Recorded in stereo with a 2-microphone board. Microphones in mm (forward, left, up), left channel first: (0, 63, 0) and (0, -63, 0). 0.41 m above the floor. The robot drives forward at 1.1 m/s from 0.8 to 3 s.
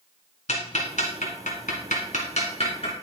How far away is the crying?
I don't hear crying.